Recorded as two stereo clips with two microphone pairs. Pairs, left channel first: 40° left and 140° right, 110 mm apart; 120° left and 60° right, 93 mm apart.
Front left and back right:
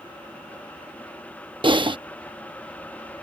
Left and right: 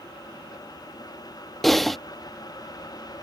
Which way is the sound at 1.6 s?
155° right.